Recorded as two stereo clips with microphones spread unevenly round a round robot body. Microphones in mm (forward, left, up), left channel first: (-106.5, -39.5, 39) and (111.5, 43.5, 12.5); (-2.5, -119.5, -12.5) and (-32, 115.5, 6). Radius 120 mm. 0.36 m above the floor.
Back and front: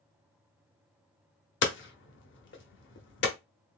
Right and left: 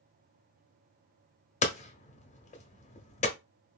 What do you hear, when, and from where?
1.6 s hammering: 130° right, 0.9 m